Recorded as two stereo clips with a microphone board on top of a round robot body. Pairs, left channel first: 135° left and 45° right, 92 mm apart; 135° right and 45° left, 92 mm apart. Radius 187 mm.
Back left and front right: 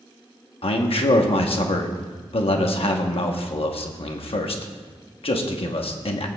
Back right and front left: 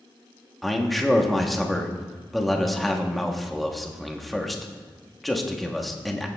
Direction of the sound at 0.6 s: 135° left.